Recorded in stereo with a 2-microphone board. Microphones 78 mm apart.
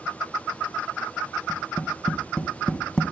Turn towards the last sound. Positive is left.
turn(degrees=10)  # may be behind; listen again after turning